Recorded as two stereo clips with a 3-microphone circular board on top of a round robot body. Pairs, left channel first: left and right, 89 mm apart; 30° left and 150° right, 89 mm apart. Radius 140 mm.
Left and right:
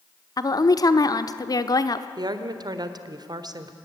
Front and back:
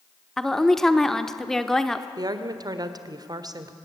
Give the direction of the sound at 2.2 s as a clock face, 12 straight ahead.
4 o'clock.